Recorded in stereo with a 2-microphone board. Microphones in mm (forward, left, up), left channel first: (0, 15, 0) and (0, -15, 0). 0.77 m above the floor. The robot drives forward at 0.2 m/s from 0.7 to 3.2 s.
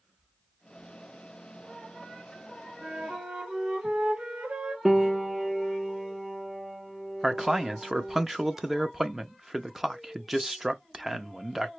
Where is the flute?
45° right (ahead or behind), 0.8 m; by 4.8 s 40° right (ahead or behind), 0.8 m.